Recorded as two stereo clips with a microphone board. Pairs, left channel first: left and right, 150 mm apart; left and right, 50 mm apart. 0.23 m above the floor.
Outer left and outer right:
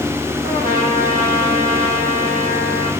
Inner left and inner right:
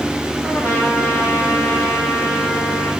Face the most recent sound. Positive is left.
turn(degrees=-70)  # may be behind; listen again after turning